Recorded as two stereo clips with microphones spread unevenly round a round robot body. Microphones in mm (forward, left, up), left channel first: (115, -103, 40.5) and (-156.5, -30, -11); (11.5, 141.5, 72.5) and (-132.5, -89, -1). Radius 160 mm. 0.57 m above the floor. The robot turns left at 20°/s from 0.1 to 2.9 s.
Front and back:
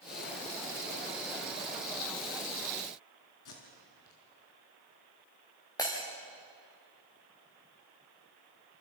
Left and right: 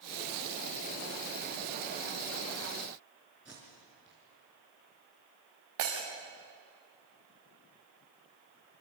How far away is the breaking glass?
About 6.5 m.